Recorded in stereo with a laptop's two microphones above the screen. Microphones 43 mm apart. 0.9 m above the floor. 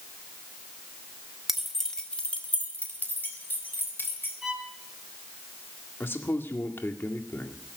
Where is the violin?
15° right (ahead or behind), 4.5 m.